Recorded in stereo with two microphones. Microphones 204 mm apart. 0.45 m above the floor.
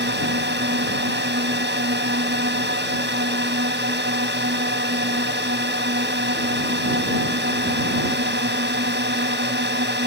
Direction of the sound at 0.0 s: 60° right (ahead or behind).